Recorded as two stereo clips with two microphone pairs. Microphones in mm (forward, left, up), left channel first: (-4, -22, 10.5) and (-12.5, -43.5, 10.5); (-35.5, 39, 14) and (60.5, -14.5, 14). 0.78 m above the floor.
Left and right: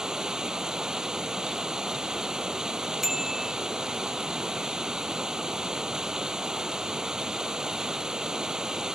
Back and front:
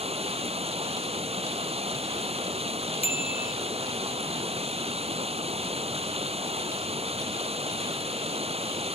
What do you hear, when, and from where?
0.0 s running water: 50° right
3.0 s a bicycle bell: 175° left